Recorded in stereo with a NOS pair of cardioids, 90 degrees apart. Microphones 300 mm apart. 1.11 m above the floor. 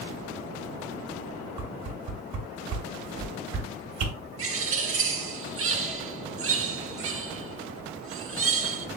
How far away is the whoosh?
About 1.3 m.